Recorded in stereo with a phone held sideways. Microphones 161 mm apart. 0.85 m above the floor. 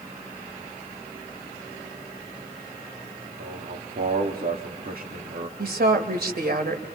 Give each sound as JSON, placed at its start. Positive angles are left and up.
{"t": 3.4, "sound": "a man speaking", "side_deg": -65, "distance_m": 2.0}
{"t": 5.6, "sound": "a woman speaking", "side_deg": -80, "distance_m": 3.0}